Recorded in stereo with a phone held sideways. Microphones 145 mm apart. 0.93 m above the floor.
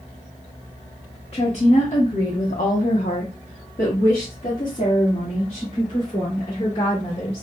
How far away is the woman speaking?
About 1.1 m.